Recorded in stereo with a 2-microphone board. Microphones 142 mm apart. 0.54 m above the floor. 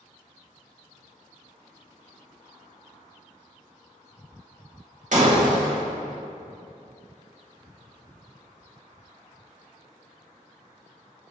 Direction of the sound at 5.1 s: 60° right (ahead or behind).